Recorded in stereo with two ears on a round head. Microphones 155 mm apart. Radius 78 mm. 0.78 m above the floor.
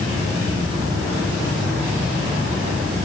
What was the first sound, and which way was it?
Only background noise.